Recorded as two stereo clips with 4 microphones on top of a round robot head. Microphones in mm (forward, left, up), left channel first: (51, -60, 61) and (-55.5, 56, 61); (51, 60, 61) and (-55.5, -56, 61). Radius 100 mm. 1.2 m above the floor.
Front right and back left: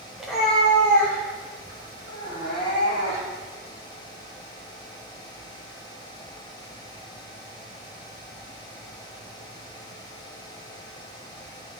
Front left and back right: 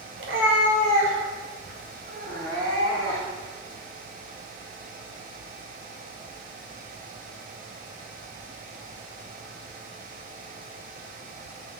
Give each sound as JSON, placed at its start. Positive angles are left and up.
{"t": 0.2, "sound": "a cat meowing", "azimuth_deg": -145, "distance_m": 1.4}